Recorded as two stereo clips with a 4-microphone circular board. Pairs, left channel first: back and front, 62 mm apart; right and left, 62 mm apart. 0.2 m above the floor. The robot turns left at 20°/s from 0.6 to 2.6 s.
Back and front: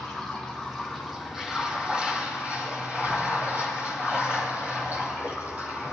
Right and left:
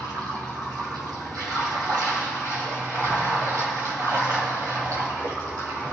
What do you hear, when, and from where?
0.0 s running water: 100° left, 3.5 m; by 5.9 s 60° left, 3.5 m